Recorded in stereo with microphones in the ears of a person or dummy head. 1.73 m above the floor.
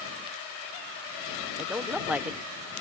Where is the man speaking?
5° right (ahead or behind).